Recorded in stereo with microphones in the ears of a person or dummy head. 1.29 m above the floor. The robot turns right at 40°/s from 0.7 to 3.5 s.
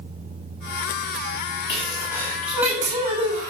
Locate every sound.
1.7 s a sneeze: 150° left, 10 m; by 3.5 s 140° right, 10 m